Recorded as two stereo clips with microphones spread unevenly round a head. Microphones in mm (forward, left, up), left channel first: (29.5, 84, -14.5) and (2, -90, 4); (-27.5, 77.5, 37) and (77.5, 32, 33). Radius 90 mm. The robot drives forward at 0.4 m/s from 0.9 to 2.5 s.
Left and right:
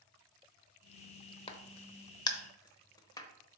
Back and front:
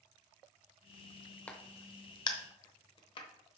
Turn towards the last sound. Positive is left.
turn(degrees=150)